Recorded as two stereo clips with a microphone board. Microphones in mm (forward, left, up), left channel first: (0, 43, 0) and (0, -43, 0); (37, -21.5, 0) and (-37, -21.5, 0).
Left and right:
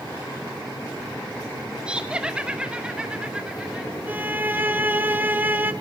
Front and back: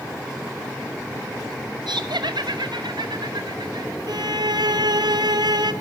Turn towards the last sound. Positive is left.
turn(degrees=-160)